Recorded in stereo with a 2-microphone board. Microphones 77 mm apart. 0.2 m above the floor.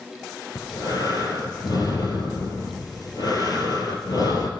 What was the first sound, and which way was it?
Breathing, 55° left (ahead or behind).